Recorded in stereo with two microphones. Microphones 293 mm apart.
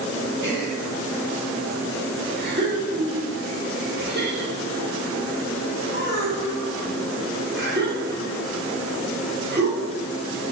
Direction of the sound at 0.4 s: 40° right (ahead or behind).